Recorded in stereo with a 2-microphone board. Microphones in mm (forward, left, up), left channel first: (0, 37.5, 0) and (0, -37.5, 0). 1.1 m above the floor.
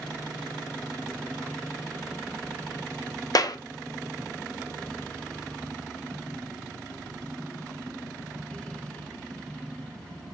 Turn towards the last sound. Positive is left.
turn(degrees=55)  # may be behind; listen again after turning